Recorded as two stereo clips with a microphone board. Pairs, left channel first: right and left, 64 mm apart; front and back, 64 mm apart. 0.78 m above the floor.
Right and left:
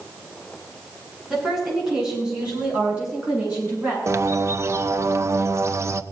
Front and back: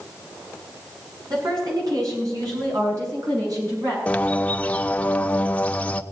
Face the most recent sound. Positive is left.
turn(degrees=65)